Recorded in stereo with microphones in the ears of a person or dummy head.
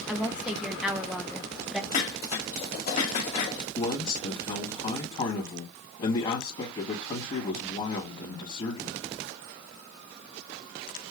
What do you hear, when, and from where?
0.1 s a woman speaking: centre (ahead or behind), 0.7 m
1.9 s dishes clattering: 50° left (ahead or behind), 1.7 m
3.8 s a man speaking: 35° left (ahead or behind), 1.8 m